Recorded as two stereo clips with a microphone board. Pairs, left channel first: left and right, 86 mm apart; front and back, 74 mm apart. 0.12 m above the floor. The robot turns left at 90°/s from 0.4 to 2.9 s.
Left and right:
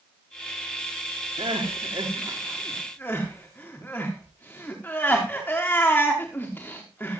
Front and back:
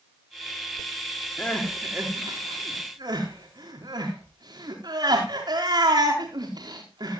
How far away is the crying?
About 5.5 m.